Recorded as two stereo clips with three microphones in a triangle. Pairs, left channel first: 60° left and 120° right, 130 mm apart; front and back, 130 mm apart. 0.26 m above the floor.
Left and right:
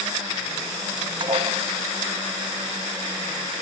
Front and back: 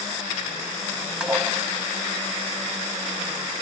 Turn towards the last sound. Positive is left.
turn(degrees=-100)